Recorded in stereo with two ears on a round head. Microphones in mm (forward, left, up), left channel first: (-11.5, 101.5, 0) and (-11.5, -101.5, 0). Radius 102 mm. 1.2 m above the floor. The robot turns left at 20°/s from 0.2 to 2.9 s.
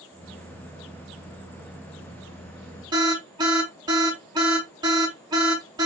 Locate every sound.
2.9 s an alarm: 20° right (ahead or behind), 3 m